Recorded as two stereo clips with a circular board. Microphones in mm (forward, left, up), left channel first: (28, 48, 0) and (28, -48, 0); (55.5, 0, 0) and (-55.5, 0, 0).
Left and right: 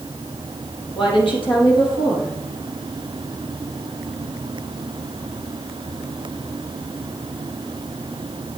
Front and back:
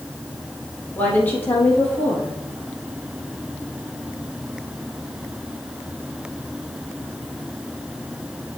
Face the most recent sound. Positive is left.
turn(degrees=75)